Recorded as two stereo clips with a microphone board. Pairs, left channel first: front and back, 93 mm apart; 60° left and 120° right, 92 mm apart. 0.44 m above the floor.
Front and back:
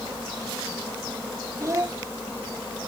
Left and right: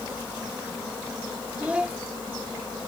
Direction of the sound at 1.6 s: 175° left.